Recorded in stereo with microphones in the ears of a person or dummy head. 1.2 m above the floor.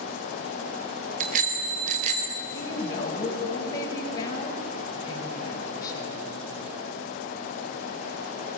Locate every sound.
1.2 s a bicycle bell: 50° right (ahead or behind), 3.5 m; by 2.4 s 40° right (ahead or behind), 4.5 m
2.5 s a woman speaking: 25° left (ahead or behind), 5 m